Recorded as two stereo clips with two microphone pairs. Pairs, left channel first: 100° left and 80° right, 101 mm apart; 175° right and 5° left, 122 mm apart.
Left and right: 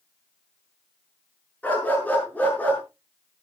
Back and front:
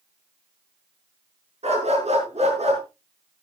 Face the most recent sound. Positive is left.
turn(degrees=25)